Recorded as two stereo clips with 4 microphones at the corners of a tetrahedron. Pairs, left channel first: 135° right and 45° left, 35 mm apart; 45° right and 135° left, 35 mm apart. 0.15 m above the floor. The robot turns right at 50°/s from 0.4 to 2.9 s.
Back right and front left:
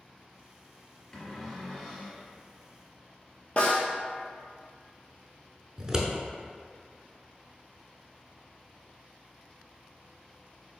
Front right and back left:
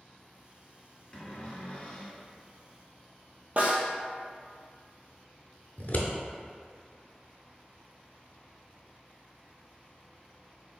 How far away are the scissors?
About 0.5 m.